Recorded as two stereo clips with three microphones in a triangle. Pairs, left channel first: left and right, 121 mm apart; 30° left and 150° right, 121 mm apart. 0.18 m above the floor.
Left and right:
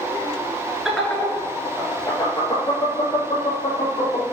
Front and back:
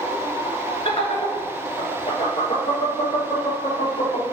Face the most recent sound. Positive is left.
turn(degrees=50)